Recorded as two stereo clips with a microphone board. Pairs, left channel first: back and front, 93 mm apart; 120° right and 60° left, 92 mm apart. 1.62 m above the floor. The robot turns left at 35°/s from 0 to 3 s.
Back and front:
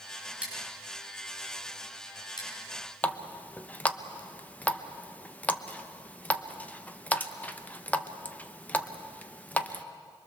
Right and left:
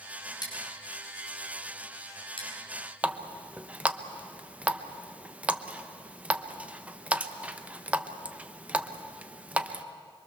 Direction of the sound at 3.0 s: 125° left.